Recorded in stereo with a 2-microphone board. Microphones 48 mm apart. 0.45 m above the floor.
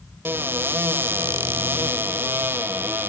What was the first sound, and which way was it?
A cupboard door, 50° right (ahead or behind).